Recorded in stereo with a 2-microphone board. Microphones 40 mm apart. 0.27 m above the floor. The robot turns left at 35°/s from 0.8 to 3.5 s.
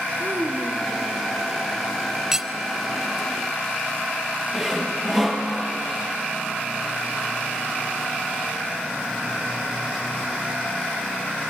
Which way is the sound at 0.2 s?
70° right (ahead or behind).